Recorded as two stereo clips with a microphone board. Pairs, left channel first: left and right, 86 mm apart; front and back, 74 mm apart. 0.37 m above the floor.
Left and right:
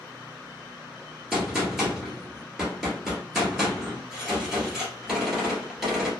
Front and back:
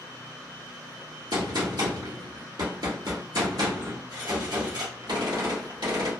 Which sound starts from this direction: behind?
A gunshot, at 1.3 s.